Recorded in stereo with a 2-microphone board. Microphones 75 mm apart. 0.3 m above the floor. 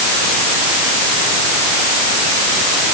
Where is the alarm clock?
I don't hear an alarm clock.